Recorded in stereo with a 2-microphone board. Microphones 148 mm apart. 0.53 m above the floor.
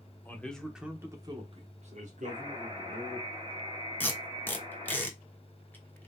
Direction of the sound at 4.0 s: 15° left (ahead or behind).